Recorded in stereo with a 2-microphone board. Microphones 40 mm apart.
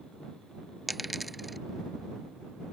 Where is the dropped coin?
5° right (ahead or behind).